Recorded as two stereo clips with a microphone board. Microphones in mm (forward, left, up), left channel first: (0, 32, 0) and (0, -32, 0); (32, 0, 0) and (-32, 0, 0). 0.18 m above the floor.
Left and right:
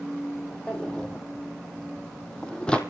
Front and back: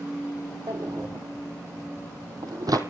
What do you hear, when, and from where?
0.7 s a drawer: 165° left, 1.7 m